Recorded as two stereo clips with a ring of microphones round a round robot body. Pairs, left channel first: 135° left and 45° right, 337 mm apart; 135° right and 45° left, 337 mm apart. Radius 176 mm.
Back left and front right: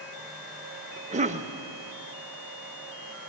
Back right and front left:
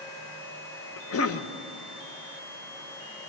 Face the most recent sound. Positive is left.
turn(degrees=-105)